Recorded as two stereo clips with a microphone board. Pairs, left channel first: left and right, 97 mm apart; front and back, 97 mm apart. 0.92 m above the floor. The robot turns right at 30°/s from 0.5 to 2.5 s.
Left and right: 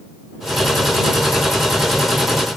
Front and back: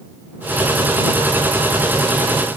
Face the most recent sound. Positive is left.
No sound to turn to.